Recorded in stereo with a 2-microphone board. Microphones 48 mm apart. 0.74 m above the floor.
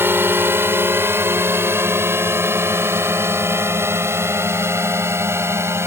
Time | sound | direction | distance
0.0 | a drone | 55° right (ahead or behind) | ?